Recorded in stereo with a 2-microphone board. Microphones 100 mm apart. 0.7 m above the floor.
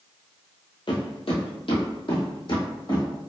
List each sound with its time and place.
0.9 s footsteps: 55° left (ahead or behind), 1.2 m; by 3.1 s 50° left (ahead or behind), 2 m